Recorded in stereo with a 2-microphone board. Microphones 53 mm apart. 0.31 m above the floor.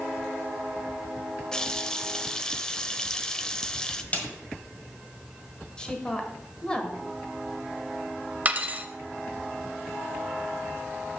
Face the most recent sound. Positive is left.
turn(degrees=-30)  # may be behind; listen again after turning